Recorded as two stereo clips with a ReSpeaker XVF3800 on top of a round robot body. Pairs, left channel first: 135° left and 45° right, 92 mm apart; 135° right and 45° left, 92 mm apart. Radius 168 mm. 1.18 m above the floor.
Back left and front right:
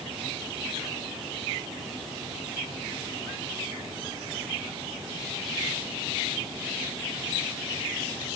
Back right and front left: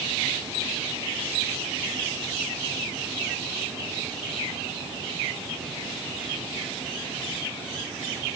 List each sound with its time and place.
Only background noise.